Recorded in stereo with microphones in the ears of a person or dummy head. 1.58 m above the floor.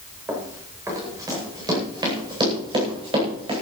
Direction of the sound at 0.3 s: 10° right (ahead or behind).